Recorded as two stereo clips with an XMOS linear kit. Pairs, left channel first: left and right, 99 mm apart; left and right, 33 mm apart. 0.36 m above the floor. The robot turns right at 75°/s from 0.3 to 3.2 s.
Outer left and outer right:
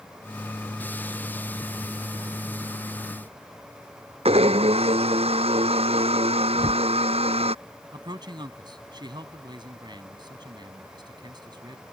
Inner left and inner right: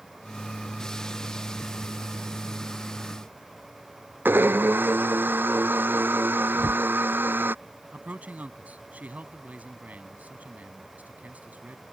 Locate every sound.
4.2 s a blender: 85° right
6.5 s a whoosh: 60° right (ahead or behind)
7.9 s a man speaking: 50° right (ahead or behind)